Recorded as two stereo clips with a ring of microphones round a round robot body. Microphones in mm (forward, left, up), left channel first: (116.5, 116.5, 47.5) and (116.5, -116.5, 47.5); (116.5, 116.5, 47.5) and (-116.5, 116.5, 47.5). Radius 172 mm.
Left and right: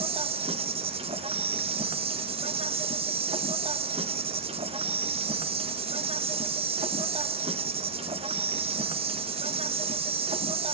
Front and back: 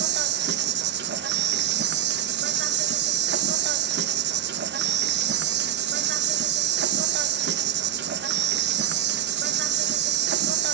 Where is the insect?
155° right, 1.1 m.